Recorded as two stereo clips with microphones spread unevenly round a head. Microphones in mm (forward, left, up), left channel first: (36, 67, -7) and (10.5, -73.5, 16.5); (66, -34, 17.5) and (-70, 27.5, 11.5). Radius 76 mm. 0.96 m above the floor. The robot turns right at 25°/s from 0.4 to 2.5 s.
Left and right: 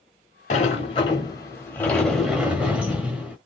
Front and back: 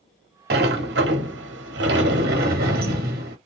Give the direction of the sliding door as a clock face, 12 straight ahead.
8 o'clock.